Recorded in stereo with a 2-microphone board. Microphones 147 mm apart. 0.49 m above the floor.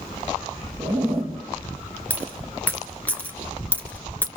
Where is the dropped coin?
10° left (ahead or behind), 1.9 m.